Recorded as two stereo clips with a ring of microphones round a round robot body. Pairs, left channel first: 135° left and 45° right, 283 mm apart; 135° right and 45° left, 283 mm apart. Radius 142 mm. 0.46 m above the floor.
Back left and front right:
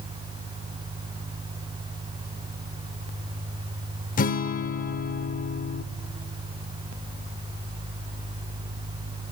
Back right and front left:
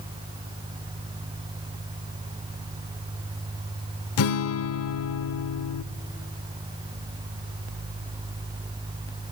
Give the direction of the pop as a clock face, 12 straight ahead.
No pop in this recording.